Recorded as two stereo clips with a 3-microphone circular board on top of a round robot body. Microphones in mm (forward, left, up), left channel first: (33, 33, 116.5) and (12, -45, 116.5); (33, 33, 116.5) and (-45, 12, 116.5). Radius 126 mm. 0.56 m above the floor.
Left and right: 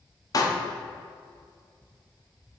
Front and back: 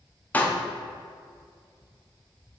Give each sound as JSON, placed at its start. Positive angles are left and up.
{"t": 0.3, "sound": "a pop", "azimuth_deg": 80, "distance_m": 1.0}